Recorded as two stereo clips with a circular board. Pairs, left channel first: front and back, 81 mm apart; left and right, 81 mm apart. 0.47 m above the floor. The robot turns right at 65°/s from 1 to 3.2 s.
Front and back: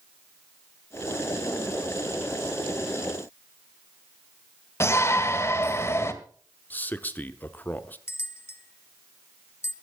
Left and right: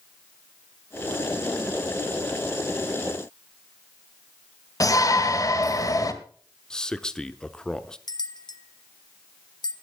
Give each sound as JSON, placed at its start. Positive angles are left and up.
{"t": 4.8, "sound": "a shout", "azimuth_deg": 55, "distance_m": 1.8}
{"t": 6.7, "sound": "a man speaking", "azimuth_deg": 25, "distance_m": 0.8}
{"t": 8.1, "sound": "a bell", "azimuth_deg": 60, "distance_m": 0.9}